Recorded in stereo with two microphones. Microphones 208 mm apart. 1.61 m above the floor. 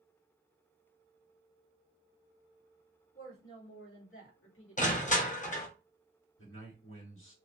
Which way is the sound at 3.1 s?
75° left (ahead or behind).